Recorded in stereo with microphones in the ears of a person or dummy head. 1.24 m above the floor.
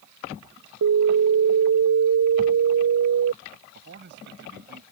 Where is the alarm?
80° right.